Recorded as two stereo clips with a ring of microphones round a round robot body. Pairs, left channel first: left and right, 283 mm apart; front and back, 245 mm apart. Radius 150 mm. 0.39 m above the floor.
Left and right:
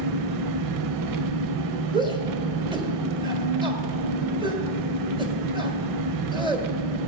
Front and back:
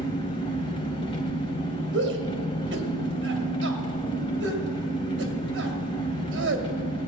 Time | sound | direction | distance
0.0 | an engine running | 75° right | 0.7 m
1.9 | a shout | 160° right | 1.9 m